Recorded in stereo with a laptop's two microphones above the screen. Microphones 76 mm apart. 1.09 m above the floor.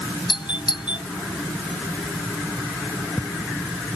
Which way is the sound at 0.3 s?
85° left.